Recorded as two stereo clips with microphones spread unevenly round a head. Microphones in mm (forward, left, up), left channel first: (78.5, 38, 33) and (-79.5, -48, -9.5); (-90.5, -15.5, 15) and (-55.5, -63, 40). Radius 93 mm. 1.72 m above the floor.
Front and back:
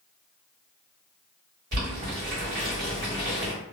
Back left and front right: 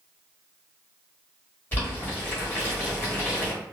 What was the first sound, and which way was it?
Boiling, 165° right.